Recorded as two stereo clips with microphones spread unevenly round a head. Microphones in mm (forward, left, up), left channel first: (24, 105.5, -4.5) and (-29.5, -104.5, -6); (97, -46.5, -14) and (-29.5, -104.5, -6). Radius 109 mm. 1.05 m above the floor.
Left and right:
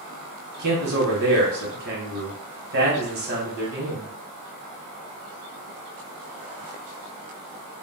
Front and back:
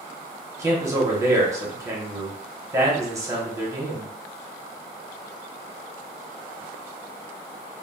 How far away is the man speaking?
About 1.0 m.